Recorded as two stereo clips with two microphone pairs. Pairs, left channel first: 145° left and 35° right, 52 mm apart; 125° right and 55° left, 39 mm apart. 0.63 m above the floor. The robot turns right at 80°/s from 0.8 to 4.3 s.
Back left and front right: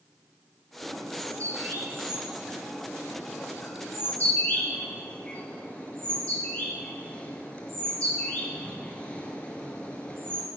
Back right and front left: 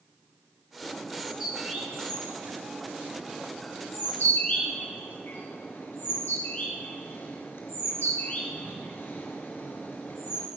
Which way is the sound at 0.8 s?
65° right.